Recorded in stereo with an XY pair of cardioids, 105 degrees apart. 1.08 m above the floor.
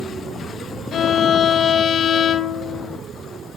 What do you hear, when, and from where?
0.9 s a violin: 60° left, 0.7 m